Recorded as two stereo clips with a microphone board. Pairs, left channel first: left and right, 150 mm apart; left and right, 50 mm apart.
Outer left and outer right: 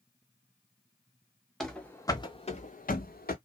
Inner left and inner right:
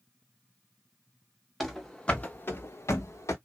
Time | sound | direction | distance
1.6 | running footsteps | centre (ahead or behind) | 0.8 m